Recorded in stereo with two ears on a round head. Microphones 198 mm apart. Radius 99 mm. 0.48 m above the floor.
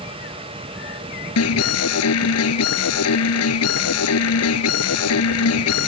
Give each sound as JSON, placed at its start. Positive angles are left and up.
{"t": 1.4, "sound": "an alarm", "side_deg": 75}